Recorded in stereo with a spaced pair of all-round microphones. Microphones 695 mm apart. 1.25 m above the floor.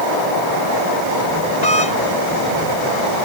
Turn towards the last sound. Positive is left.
turn(degrees=70)  # may be behind; listen again after turning